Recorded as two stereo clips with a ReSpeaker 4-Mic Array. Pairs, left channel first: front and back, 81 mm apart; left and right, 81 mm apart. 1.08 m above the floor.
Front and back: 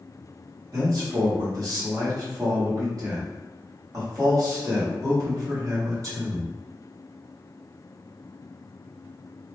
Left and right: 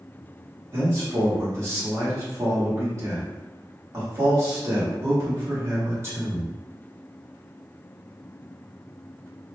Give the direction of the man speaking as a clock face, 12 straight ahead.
5 o'clock.